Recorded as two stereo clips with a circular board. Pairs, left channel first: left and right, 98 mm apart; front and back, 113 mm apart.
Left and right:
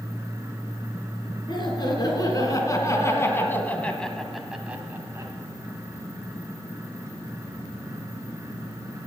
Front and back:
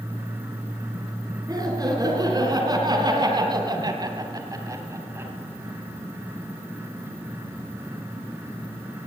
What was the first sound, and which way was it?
Laughter, 125° left.